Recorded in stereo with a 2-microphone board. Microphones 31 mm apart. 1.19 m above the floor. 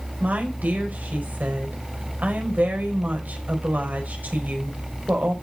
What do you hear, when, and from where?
0.2 s a woman speaking: 80° right, 5 m